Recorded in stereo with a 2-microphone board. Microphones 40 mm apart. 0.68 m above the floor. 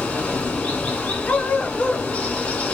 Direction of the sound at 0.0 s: 30° left (ahead or behind).